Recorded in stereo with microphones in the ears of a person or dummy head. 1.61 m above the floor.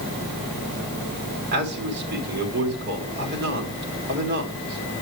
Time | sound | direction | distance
1.5 | a man speaking | 60° right (ahead or behind) | 3.5 m